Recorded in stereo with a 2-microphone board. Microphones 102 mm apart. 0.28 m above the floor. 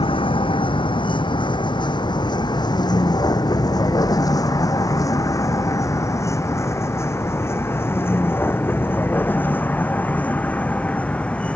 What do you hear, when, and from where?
0.0 s a vehicle: 60° left (ahead or behind); by 11.6 s 10° left (ahead or behind)